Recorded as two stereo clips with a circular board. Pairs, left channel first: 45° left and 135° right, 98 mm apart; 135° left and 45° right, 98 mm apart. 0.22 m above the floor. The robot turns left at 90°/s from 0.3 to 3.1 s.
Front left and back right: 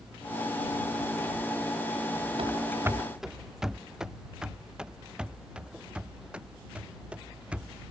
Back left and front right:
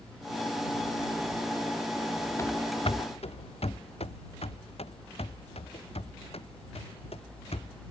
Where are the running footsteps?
165° right; by 7.8 s 145° left.